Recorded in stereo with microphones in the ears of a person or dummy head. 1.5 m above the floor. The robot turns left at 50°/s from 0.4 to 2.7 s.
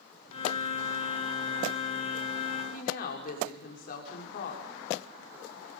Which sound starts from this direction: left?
A woman speaking, at 2.7 s.